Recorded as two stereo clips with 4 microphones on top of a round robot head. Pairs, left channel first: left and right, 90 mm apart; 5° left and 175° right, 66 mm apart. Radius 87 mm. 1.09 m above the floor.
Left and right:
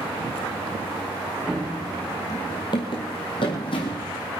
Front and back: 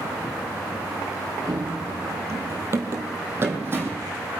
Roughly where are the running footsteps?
Behind.